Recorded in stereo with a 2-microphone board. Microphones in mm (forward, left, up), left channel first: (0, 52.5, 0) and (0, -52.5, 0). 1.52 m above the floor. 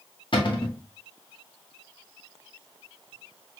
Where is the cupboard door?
55° left (ahead or behind), 1.1 m.